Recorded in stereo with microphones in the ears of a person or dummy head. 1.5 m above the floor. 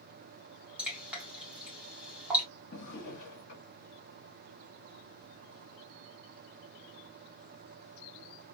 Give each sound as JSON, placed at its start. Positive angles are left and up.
{"t": 0.8, "sound": "dripping", "side_deg": -5, "distance_m": 2.0}
{"t": 2.7, "sound": "a drawer", "side_deg": 55, "distance_m": 1.5}